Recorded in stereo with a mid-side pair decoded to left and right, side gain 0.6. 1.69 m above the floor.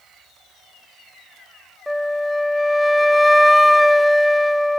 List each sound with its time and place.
1.9 s a flute: straight ahead, 0.7 m